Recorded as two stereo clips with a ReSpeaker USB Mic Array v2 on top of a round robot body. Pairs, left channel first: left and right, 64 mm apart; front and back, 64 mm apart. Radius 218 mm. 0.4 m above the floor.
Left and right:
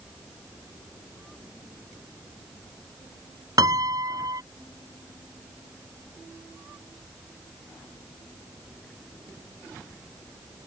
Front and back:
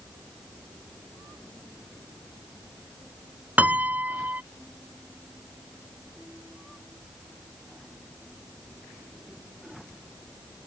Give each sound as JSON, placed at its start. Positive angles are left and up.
{"t": 3.6, "sound": "a piano", "azimuth_deg": -115}